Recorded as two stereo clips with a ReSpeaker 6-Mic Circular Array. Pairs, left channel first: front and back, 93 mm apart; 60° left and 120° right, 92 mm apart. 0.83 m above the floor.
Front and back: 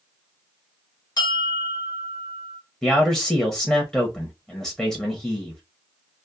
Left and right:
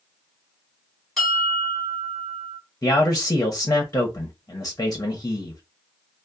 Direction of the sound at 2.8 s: 75° left.